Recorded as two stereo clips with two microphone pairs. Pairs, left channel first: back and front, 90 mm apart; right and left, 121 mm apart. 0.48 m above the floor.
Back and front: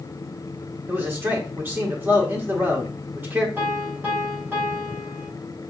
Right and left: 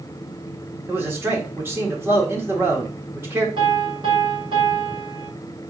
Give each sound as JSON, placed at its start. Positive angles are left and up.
{"t": 0.9, "sound": "a man speaking", "azimuth_deg": 45, "distance_m": 1.4}
{"t": 3.6, "sound": "a piano", "azimuth_deg": 60, "distance_m": 2.5}